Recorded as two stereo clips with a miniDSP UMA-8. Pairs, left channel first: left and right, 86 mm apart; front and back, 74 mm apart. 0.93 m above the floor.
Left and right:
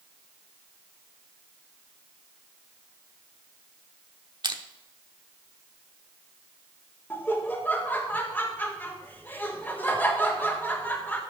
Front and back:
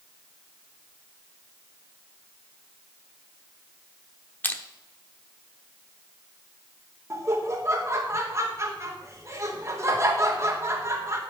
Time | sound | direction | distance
4.4 | crushing | 65° right | 0.8 m
7.1 | laughter | 150° left | 1.1 m